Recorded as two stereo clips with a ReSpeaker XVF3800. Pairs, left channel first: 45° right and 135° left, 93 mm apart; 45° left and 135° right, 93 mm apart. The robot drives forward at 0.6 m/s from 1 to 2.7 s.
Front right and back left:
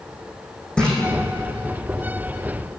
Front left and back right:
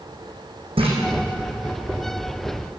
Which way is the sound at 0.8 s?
125° right.